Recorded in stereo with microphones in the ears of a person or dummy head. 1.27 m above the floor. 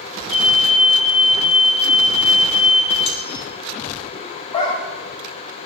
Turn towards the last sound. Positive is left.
turn(degrees=35)  # may be behind; listen again after turning